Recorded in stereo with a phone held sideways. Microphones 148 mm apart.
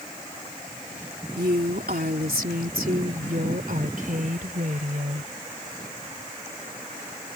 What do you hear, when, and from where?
1.4 s a woman speaking: 80° right; by 5.3 s 60° right (ahead or behind)